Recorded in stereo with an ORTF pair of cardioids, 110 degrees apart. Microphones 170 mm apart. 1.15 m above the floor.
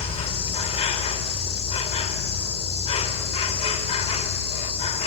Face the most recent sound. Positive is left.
turn(degrees=35)